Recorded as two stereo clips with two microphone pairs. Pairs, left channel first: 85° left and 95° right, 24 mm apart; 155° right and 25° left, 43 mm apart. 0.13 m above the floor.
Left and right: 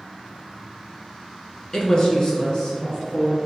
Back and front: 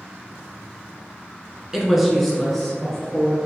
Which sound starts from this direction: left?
A woman speaking, at 1.7 s.